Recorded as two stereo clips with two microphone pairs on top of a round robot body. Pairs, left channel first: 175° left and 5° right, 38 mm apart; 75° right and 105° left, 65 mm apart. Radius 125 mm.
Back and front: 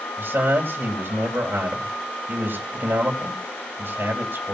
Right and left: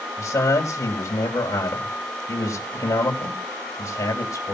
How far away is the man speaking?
About 4 m.